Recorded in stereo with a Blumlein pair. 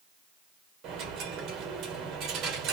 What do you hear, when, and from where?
0.8 s a dropped coin: 35° right, 1.9 m